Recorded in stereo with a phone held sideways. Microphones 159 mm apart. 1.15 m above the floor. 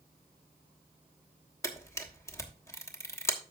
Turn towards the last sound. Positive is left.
turn(degrees=20)  # may be behind; listen again after turning